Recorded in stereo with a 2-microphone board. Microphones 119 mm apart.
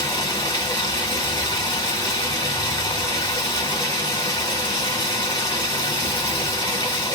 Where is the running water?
35° left (ahead or behind), 1.4 m.